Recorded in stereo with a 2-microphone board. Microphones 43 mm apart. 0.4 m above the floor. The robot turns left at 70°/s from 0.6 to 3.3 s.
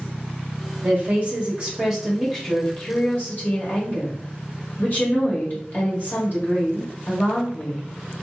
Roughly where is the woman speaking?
Right.